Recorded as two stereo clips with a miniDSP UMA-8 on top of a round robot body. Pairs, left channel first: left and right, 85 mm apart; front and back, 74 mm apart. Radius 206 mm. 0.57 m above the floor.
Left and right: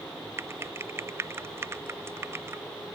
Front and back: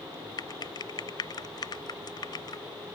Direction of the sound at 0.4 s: 30° right.